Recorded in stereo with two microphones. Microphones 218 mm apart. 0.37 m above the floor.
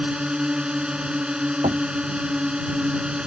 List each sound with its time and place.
0.0 s a drone: 5° right (ahead or behind)
1.6 s knocking: 35° right (ahead or behind)